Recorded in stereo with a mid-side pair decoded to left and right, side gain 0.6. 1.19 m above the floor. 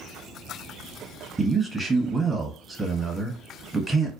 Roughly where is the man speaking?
Ahead.